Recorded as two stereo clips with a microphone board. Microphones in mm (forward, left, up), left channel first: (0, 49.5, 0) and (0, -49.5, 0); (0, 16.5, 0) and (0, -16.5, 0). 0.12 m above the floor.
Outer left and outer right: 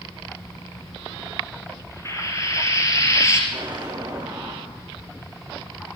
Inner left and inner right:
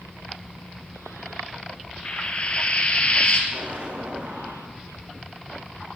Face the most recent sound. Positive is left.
turn(degrees=-45)  # may be behind; listen again after turning